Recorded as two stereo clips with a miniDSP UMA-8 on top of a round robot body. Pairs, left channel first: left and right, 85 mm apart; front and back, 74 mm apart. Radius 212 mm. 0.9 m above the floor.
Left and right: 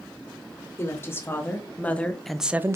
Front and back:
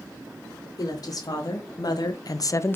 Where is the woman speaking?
30° left, 3 m; by 2.8 s 50° right, 0.8 m.